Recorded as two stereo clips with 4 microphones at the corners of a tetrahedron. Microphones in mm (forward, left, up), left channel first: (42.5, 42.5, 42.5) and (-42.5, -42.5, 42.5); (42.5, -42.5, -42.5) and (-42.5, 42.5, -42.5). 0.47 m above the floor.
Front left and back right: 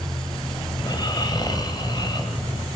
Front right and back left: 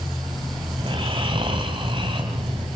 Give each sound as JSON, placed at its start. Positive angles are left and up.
{"t": 0.8, "sound": "snoring", "azimuth_deg": 95, "distance_m": 3.0}